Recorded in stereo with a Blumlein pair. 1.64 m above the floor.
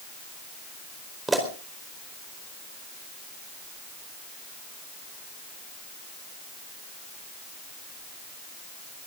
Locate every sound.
1.3 s a pop: 10° right, 4.5 m